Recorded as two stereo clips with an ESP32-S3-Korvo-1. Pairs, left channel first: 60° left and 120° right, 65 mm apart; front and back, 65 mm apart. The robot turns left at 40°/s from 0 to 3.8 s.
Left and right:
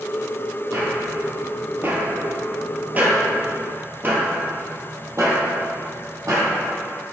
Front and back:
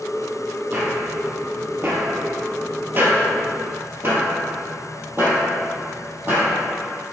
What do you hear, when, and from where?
0.7 s footsteps: 130° right, 2.0 m; by 6.5 s 125° right, 2.5 m